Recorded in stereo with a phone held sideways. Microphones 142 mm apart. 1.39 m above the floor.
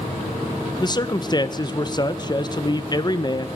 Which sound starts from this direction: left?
A man speaking, at 0.8 s.